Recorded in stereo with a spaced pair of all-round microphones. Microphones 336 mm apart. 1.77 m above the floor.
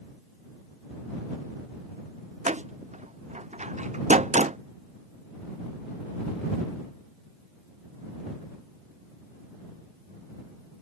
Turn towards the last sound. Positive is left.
turn(degrees=-20)  # may be behind; listen again after turning